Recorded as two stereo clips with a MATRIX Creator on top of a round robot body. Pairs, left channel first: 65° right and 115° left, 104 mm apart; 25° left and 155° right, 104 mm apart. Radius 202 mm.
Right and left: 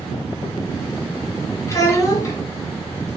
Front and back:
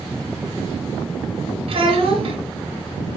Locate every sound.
1.7 s a child speaking: 130° right, 1.5 m